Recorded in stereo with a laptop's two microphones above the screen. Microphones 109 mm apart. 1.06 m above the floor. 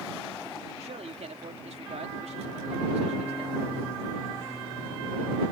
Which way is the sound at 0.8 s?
80° right.